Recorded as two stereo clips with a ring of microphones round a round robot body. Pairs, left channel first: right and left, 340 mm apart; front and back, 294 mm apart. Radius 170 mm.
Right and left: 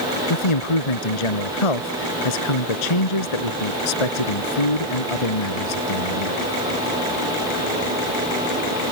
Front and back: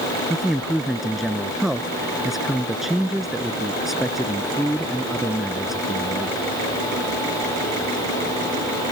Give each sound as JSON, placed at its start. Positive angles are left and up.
{"t": 0.3, "sound": "a man speaking", "azimuth_deg": -90}